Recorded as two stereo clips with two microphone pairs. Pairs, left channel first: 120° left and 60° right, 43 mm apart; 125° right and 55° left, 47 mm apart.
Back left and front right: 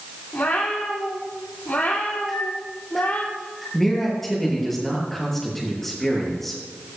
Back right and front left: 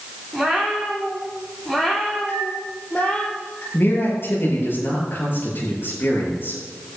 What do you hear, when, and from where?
0.3 s a cat meowing: 150° left, 4.5 m; by 3.3 s 175° left, 3 m
2.3 s a microwave: 150° right, 6 m
3.7 s a man speaking: 155° right, 6.5 m